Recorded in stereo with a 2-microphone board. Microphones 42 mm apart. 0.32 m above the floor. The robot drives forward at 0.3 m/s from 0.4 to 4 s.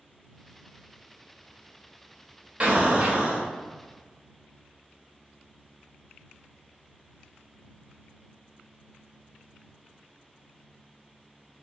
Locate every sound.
2.6 s an explosion: 35° right (ahead or behind), 0.7 m